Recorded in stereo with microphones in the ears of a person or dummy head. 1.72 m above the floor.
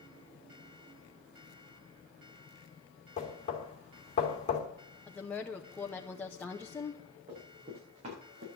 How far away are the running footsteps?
About 8 m.